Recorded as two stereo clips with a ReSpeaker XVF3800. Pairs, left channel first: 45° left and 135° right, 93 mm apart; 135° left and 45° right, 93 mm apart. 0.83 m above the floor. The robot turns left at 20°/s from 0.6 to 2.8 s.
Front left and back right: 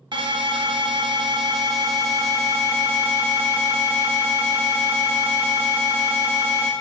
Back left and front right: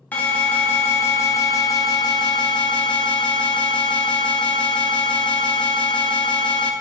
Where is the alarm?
155° right, 1.1 m; by 6.7 s 160° left, 1.1 m.